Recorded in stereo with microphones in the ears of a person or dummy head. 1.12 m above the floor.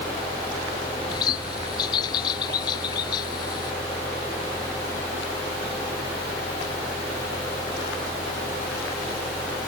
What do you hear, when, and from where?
1.1 s a bird: 25° left (ahead or behind)